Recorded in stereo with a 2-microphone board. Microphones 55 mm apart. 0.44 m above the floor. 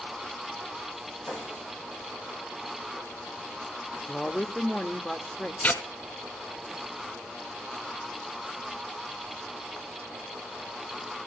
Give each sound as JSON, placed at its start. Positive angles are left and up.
{"t": 1.3, "sound": "a snare drum", "side_deg": 60, "distance_m": 7.5}
{"t": 4.1, "sound": "a woman speaking", "side_deg": 20, "distance_m": 0.8}
{"t": 5.6, "sound": "tearing paper", "side_deg": 35, "distance_m": 1.4}